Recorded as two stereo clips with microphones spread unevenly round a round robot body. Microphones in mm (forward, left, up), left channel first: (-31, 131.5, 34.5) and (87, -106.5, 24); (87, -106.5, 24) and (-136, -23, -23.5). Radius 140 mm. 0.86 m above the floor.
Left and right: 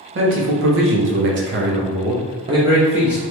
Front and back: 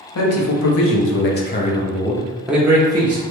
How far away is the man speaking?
About 1.1 m.